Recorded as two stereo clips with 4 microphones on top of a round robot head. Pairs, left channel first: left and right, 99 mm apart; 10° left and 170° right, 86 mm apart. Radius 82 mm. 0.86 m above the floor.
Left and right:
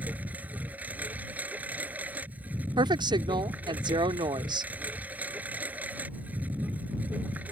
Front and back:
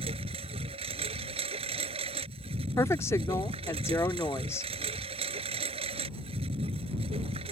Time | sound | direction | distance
0.0 | a lawn mower | 170° right | ?
2.8 | a woman speaking | 50° right | ?